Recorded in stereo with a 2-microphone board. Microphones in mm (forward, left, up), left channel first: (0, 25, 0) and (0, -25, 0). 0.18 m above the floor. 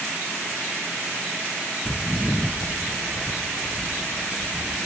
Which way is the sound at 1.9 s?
20° right (ahead or behind).